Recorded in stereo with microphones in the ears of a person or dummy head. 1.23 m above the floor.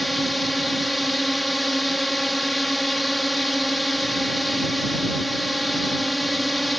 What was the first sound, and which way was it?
A drone, 5° right (ahead or behind).